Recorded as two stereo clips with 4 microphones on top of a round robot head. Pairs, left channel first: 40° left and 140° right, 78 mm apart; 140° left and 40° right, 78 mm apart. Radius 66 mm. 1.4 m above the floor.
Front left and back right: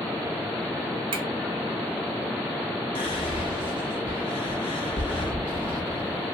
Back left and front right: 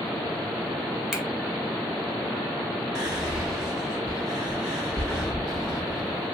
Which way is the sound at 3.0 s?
45° left.